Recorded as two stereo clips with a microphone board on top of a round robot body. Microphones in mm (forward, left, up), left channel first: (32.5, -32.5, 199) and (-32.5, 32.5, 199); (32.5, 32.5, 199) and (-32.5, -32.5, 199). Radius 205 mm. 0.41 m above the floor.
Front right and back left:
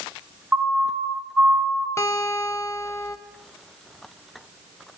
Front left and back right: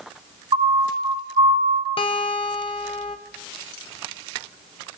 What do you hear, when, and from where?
0.5 s a siren: 150° right, 3.5 m; by 1.9 s 145° right, 2.5 m
2.0 s a guitar: 20° left, 0.9 m